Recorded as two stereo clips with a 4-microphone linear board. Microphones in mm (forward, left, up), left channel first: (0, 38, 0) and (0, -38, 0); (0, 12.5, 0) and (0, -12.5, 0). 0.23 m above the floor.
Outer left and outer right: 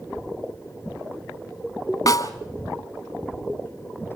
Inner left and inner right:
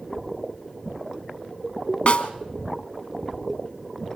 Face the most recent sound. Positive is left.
turn(degrees=55)  # may be behind; listen again after turning